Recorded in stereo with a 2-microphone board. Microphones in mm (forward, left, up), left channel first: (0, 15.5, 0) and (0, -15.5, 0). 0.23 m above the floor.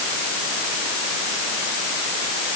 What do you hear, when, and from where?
Only background noise.